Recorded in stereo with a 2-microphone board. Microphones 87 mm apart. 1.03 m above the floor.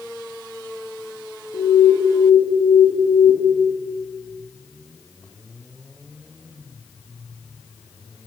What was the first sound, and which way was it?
An alarm, 80° left.